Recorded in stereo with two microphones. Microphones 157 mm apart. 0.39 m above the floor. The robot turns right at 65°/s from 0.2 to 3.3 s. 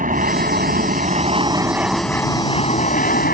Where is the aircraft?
115° right; by 3.3 s 85° left.